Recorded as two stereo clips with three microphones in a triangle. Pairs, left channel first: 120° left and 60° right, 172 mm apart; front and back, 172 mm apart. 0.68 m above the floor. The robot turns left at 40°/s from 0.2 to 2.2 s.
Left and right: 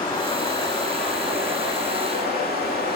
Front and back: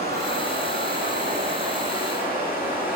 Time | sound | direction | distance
0.0 | running water | straight behind | 8 m